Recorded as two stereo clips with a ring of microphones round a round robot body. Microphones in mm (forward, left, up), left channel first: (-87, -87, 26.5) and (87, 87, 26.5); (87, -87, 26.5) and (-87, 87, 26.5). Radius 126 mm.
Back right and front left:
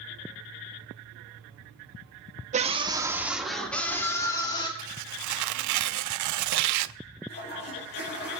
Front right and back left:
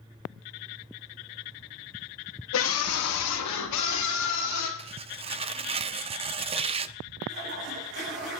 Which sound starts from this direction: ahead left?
Tearing paper, at 4.8 s.